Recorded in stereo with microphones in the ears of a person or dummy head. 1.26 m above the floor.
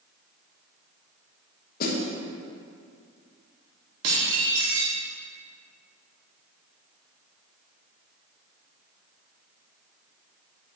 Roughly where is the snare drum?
Left.